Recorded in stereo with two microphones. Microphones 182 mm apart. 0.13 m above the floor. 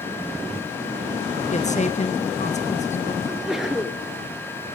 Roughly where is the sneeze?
Centre.